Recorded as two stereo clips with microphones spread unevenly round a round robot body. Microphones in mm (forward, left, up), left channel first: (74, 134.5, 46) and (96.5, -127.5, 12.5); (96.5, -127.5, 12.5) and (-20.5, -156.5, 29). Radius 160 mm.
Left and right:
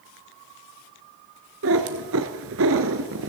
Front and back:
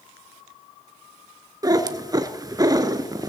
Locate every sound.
1.6 s a cat meowing: 125° right, 0.8 m